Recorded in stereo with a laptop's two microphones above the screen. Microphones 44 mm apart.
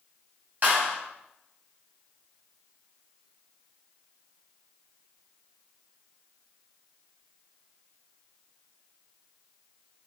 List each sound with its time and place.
0.6 s a clap: 40° right (ahead or behind), 4 m